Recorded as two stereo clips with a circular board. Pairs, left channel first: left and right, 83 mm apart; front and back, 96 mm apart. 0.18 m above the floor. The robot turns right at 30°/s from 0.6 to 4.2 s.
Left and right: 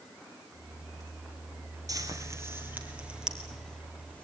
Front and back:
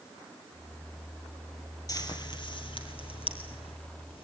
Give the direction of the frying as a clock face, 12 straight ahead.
2 o'clock.